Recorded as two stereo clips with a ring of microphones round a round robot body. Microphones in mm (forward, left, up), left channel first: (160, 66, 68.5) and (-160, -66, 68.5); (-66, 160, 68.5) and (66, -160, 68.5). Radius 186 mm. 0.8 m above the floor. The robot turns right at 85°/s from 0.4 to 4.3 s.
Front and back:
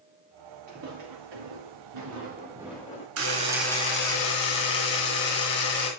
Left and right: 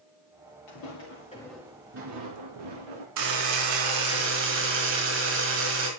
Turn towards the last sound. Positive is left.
turn(degrees=-10)